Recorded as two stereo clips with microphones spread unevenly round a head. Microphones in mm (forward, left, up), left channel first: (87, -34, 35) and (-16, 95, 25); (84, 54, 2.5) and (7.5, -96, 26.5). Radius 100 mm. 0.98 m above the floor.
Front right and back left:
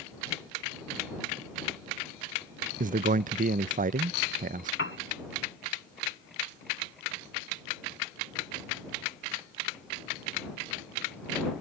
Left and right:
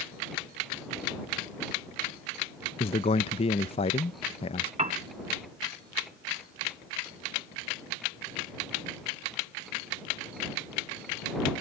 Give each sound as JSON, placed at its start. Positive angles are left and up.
{"t": 2.8, "sound": "a man speaking", "azimuth_deg": 105}
{"t": 4.8, "sound": "a piano", "azimuth_deg": -75}